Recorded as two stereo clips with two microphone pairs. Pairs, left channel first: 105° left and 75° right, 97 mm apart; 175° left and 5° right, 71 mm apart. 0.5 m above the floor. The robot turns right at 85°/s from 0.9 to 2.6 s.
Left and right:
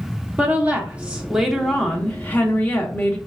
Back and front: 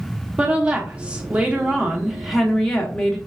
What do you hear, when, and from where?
0.4 s a woman speaking: 40° right, 0.7 m; by 3.2 s 105° left, 0.7 m